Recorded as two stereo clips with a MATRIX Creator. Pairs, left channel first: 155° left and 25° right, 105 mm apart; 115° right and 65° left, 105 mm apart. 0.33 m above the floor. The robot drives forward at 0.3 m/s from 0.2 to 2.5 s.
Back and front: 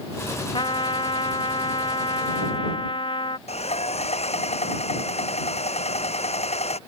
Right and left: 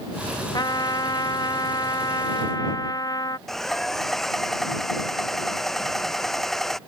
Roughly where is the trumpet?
Behind.